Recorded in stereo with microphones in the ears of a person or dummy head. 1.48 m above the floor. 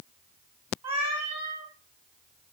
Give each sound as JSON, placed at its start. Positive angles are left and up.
{"t": 0.8, "sound": "a cat meowing", "side_deg": -35, "distance_m": 3.0}